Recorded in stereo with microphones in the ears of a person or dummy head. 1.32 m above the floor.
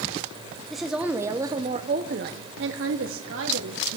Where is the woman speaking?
Centre (ahead or behind), 1.3 m; by 4.0 s 65° right (ahead or behind), 1.6 m.